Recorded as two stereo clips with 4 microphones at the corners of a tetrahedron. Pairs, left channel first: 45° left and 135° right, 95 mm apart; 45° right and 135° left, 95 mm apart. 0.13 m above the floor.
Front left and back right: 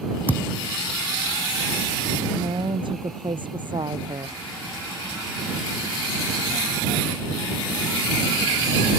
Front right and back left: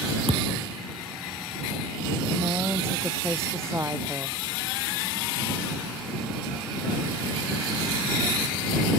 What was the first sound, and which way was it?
A thud, 115° left.